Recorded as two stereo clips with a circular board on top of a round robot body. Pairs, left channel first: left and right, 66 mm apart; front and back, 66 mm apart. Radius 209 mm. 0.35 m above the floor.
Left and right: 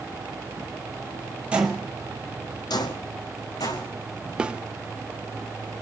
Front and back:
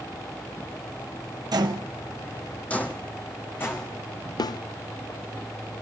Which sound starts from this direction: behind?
Footsteps, at 1.5 s.